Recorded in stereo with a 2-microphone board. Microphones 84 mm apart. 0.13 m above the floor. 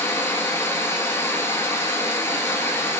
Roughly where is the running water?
Left.